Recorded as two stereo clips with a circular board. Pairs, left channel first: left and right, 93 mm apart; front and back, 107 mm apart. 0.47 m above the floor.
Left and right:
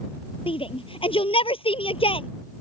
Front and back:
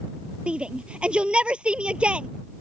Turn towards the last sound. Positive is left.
turn(degrees=100)